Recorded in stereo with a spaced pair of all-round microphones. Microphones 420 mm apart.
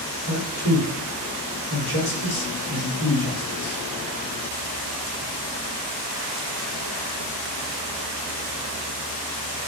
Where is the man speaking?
65° left (ahead or behind), 3.5 m.